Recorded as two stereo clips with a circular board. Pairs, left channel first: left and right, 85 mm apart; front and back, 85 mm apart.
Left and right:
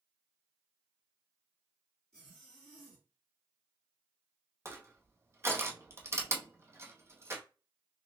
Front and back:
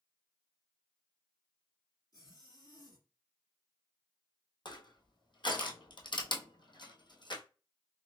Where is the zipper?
10° left, 2.5 m.